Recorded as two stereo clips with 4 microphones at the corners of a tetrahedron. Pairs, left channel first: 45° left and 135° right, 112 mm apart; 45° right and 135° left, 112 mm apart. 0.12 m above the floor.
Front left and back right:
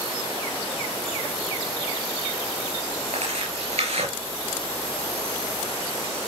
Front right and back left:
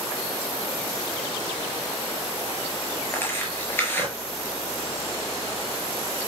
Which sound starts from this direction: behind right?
Tearing paper, at 3.1 s.